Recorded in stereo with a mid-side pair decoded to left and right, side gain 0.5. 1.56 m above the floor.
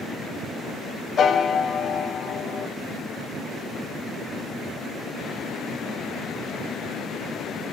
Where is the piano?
45° left, 0.8 m.